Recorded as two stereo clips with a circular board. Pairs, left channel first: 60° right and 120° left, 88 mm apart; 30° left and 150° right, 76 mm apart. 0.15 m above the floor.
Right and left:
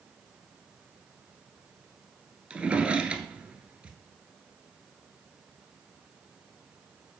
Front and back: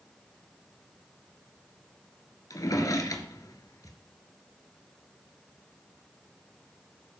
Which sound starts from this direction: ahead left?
A drawer, at 2.5 s.